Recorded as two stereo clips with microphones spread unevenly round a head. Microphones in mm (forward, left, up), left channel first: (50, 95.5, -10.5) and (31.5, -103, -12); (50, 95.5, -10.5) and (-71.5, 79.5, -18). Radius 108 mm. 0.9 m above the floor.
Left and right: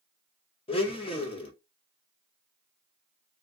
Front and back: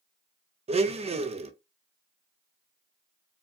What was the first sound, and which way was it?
A blender, 150° left.